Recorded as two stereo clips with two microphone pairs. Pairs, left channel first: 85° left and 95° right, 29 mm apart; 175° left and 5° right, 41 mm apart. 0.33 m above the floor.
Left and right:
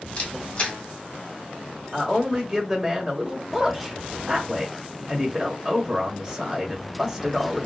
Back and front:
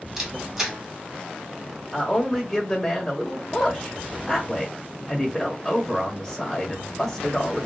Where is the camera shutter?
65° left, 1.8 m.